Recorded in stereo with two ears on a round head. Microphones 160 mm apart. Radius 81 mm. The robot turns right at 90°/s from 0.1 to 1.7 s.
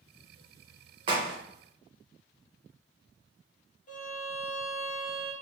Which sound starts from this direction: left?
A violin, at 3.9 s.